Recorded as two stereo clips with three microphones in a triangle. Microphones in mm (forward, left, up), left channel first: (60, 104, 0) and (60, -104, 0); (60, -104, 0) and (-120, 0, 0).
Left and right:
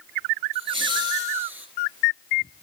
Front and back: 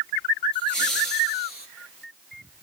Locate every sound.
0.5 s laughter: 35° right, 2.5 m; by 1.7 s 5° right, 2 m